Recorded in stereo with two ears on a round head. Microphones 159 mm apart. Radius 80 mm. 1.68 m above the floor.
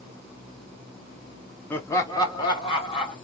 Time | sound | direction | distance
1.7 | laughter | 10° left (ahead or behind) | 0.5 m